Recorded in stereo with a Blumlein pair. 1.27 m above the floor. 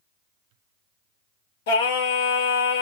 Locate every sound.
1.7 s singing: 55° left, 2 m